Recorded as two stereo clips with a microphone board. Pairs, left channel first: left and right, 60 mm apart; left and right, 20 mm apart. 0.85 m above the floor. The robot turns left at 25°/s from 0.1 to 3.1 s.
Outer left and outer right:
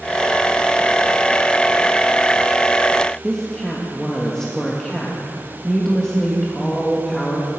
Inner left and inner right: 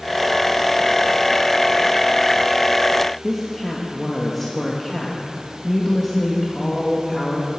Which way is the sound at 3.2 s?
10° left (ahead or behind).